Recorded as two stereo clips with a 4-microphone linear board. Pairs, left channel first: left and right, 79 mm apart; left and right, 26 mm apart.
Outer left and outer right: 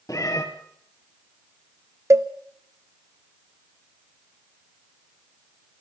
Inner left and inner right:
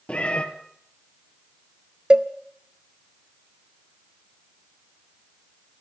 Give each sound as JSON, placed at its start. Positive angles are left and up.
{"t": 0.1, "sound": "a cat meowing", "side_deg": 45, "distance_m": 2.0}
{"t": 2.1, "sound": "a cowbell", "side_deg": -40, "distance_m": 0.7}